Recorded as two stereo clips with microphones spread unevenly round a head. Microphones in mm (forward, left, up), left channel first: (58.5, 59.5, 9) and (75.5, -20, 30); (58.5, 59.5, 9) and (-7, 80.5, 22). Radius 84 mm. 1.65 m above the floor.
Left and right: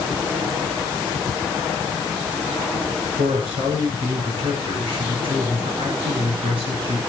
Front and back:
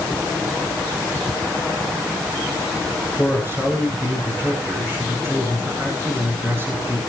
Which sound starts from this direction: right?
A man speaking, at 3.2 s.